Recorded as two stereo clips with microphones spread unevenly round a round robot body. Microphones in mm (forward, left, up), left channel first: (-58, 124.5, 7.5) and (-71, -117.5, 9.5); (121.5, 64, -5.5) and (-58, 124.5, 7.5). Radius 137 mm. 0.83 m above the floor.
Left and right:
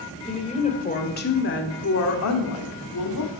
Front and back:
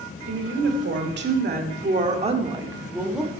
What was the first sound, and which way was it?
A woman speaking, 155° left.